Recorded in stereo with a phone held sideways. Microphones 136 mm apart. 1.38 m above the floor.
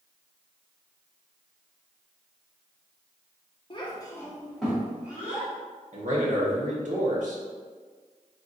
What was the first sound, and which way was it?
A child speaking, 40° left (ahead or behind).